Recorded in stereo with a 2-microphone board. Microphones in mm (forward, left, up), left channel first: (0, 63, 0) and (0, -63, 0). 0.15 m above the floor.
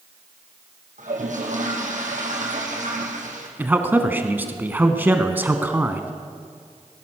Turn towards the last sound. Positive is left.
turn(degrees=-15)  # may be behind; listen again after turning